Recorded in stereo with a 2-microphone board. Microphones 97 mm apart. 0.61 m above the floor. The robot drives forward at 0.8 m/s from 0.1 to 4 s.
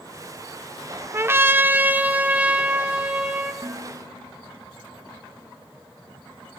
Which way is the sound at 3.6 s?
25° right (ahead or behind).